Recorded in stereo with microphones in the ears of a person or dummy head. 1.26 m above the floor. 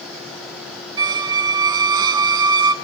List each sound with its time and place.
1.0 s a squeak: 25° right (ahead or behind), 0.7 m